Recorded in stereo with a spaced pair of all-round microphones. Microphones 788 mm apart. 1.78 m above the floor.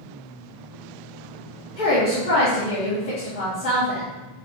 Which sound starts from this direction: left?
A woman speaking, at 1.8 s.